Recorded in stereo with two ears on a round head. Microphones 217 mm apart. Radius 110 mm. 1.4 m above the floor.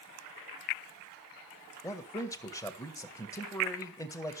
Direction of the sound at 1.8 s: 15° left (ahead or behind).